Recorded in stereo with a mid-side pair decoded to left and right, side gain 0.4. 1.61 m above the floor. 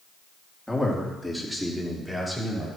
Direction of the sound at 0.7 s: 5° left.